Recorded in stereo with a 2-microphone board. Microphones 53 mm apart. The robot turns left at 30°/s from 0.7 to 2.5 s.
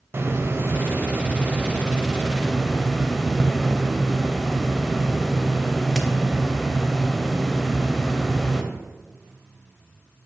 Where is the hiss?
125° right, 0.7 m; by 8.6 s straight behind, 0.7 m.